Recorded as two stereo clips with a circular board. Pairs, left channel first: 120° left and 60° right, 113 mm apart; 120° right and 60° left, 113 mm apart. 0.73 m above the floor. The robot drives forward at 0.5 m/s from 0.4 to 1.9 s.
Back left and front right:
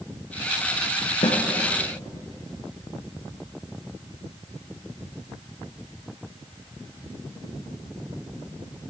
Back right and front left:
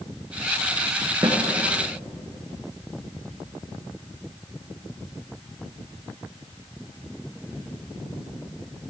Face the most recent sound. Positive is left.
turn(degrees=120)